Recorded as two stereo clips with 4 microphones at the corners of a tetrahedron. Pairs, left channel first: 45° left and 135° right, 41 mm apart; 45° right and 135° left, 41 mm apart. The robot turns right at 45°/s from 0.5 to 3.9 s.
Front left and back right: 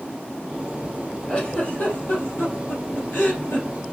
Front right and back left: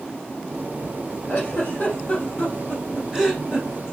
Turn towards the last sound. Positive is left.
turn(degrees=85)